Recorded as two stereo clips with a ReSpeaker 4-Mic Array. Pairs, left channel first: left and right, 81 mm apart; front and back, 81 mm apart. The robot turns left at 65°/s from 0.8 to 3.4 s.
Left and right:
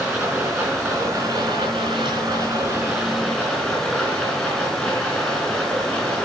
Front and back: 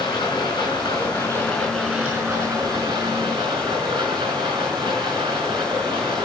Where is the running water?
30° right, 4 m; by 6.3 s 165° left, 4 m.